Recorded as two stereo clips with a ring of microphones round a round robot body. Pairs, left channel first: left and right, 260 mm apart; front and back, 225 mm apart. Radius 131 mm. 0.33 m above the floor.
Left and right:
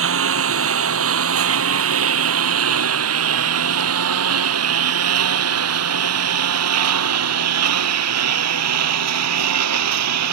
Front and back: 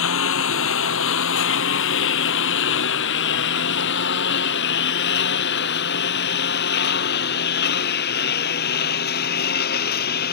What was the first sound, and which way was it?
A lawn mower, 45° right.